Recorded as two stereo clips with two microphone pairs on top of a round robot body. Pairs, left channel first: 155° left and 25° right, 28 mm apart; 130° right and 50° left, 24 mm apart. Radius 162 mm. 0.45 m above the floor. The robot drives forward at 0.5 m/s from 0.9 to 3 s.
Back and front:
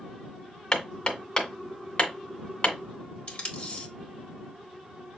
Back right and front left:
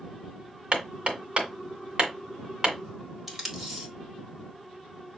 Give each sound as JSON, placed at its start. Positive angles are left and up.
{"t": 0.7, "sound": "hammering", "azimuth_deg": 85, "distance_m": 2.0}
{"t": 3.3, "sound": "tape being pulled", "azimuth_deg": 130, "distance_m": 2.5}